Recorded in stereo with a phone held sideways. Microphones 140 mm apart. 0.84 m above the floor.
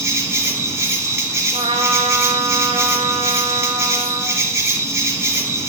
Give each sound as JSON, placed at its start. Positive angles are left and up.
{"t": 0.0, "sound": "an insect", "side_deg": -20, "distance_m": 1.1}
{"t": 1.5, "sound": "a trumpet", "side_deg": -45, "distance_m": 0.8}